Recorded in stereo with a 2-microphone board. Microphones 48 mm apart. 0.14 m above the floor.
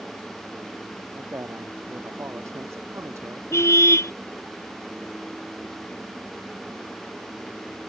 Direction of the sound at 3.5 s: 65° left (ahead or behind).